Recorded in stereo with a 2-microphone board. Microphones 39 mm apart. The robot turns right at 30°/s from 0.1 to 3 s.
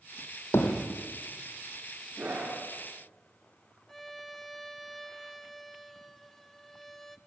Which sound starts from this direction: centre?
A violin, at 3.9 s.